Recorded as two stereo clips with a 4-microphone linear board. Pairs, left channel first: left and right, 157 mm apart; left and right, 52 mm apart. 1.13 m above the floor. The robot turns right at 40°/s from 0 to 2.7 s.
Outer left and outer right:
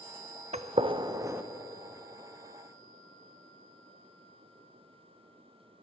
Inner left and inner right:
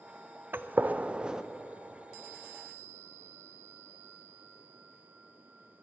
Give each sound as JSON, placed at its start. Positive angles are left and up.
{"t": 0.5, "sound": "a gunshot", "side_deg": -50, "distance_m": 0.5}